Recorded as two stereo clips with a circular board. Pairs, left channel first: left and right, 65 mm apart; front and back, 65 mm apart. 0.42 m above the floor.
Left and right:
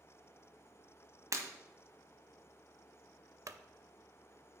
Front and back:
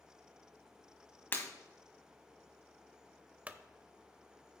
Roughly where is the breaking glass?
Ahead right.